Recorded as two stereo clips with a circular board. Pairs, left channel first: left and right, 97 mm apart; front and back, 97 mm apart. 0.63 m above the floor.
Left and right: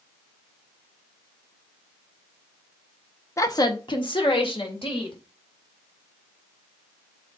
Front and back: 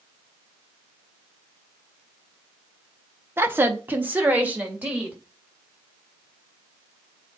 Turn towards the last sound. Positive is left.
turn(degrees=105)